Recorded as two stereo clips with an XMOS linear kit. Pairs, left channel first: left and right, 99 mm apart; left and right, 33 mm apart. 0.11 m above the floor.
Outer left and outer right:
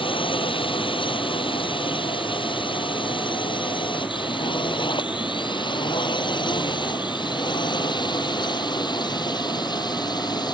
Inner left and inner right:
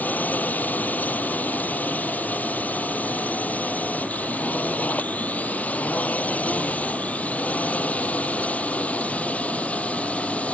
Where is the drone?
60° left (ahead or behind); by 10.6 s 45° left (ahead or behind).